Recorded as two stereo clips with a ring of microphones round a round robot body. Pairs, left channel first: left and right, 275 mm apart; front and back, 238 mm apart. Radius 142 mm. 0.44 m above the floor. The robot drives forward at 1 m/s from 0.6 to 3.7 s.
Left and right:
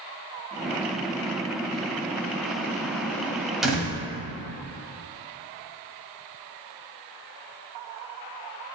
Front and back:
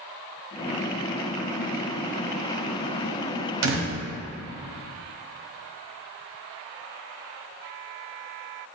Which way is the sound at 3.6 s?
Straight behind.